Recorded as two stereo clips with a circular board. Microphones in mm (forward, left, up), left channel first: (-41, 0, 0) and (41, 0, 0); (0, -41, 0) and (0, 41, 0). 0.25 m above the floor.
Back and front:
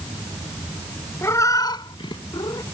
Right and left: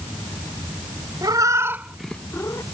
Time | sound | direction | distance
1.2 | a cat meowing | 125° left | ?